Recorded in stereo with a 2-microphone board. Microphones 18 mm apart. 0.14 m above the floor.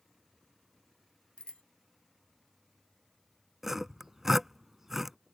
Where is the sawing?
20° right (ahead or behind).